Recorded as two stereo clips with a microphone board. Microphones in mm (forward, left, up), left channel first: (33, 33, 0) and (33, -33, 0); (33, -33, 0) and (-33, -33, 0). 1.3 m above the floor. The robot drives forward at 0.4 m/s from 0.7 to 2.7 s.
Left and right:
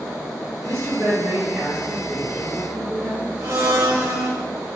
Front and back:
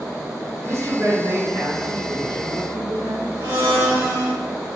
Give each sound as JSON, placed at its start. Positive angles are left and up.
{"t": 0.6, "sound": "a woman speaking", "azimuth_deg": -135, "distance_m": 1.0}
{"t": 3.4, "sound": "a blender", "azimuth_deg": -135, "distance_m": 1.9}